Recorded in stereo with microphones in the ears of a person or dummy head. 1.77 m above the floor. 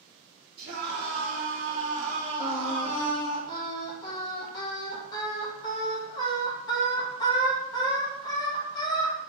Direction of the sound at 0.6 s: 60° right (ahead or behind).